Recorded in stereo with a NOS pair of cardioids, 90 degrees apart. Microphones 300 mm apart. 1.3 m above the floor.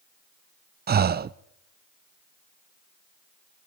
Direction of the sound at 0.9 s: 30° right.